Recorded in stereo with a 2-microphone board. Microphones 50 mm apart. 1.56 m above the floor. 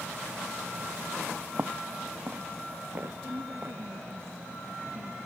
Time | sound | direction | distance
1.6 | footsteps | 35° right (ahead or behind) | ?
3.2 | a woman speaking | 60° right (ahead or behind) | ?